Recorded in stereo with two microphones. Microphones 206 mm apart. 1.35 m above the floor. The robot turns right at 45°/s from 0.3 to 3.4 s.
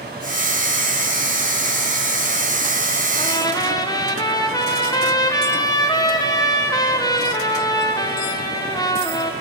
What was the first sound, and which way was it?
A trumpet, 30° left (ahead or behind).